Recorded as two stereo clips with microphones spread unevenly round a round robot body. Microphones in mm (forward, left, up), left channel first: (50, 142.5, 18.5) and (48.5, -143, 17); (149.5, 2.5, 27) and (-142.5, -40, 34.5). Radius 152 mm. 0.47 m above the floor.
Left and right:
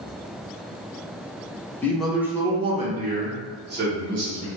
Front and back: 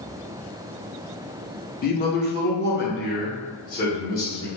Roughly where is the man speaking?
Ahead.